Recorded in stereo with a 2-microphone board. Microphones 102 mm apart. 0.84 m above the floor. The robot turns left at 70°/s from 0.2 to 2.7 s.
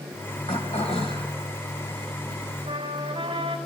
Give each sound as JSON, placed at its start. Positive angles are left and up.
{"t": 0.5, "sound": "throat clearing", "azimuth_deg": 105, "distance_m": 3.0}
{"t": 2.7, "sound": "a trumpet", "side_deg": -80, "distance_m": 4.0}